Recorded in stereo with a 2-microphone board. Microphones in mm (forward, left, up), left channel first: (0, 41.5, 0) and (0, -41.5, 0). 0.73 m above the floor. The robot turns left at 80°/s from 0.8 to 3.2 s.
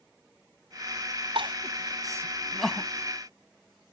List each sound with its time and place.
1.4 s crying: 80° right; by 2.9 s 25° left (ahead or behind)